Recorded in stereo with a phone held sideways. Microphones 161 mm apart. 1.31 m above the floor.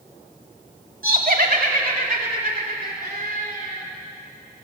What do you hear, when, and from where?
1.0 s laughter: 65° right (ahead or behind), 3 m; by 3.8 s 70° right (ahead or behind), 6 m